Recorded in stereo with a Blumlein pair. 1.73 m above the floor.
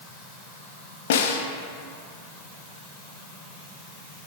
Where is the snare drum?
55° left, 0.5 m.